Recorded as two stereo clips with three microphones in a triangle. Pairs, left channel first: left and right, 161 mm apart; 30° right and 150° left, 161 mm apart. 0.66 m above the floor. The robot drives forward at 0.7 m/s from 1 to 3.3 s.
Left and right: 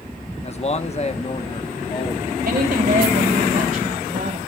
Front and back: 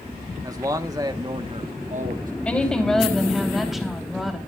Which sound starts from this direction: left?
A man speaking, at 0.4 s.